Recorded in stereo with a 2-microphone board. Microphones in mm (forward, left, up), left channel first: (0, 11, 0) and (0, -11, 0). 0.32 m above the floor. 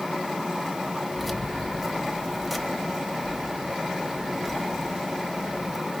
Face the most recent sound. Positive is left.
turn(degrees=-5)  # may be behind; listen again after turning